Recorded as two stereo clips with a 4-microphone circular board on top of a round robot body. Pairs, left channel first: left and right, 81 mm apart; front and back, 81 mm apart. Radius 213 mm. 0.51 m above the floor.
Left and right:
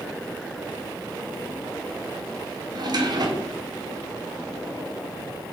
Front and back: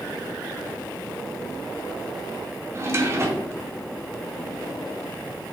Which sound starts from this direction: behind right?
A drawer, at 2.7 s.